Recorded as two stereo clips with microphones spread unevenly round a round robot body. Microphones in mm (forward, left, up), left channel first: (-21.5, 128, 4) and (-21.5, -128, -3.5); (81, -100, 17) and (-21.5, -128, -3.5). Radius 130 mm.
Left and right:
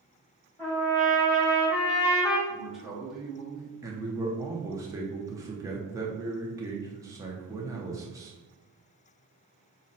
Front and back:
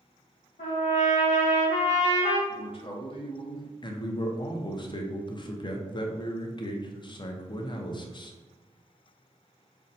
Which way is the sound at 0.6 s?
5° left.